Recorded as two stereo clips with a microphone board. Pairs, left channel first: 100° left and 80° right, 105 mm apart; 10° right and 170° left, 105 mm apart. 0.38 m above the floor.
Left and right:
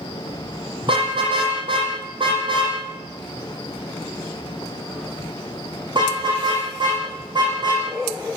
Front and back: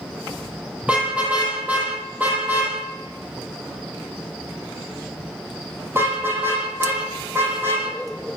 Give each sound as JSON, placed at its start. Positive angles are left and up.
{"t": 0.8, "sound": "a car horn", "azimuth_deg": -115, "distance_m": 8.0}